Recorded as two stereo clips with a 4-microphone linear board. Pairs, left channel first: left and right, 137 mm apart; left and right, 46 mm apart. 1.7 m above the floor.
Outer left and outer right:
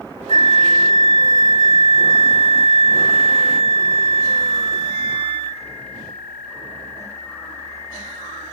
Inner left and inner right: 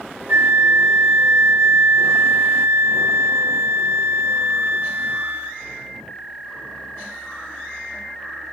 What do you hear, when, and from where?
0.3 s a flute: 55° right (ahead or behind), 1.5 m